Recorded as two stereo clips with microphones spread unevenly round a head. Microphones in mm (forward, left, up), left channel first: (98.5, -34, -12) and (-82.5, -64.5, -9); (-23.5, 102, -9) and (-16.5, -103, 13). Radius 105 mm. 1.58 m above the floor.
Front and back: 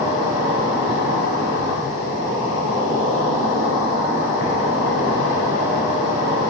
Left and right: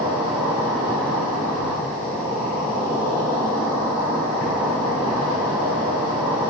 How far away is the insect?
About 3 m.